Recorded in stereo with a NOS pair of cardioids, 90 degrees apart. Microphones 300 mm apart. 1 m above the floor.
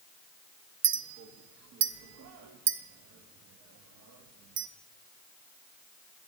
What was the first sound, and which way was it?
A clink, 60° right.